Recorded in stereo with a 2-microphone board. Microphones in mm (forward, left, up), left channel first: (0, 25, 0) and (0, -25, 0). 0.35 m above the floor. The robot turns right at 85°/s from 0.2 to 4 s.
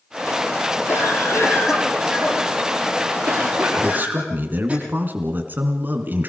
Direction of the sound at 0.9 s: 70° left.